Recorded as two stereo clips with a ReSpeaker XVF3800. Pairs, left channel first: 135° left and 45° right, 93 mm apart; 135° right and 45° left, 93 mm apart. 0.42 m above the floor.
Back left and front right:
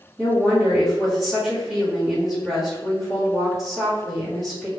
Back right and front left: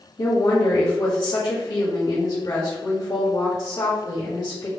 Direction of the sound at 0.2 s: 125° right.